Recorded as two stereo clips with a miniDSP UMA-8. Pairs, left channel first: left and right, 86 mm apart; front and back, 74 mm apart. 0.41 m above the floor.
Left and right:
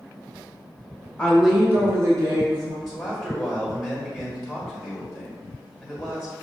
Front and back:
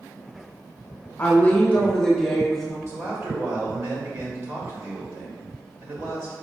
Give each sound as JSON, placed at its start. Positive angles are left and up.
{"t": 1.2, "sound": "a woman speaking", "azimuth_deg": 30, "distance_m": 0.8}
{"t": 2.9, "sound": "a man speaking", "azimuth_deg": -175, "distance_m": 1.5}